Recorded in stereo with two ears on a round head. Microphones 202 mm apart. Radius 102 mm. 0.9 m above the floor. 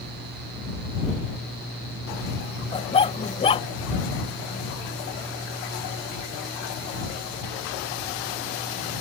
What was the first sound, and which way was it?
A dog barking, 25° left (ahead or behind).